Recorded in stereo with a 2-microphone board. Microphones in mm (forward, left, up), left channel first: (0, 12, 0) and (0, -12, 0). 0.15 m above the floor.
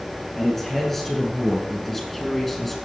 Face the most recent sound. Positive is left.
turn(degrees=15)  # may be behind; listen again after turning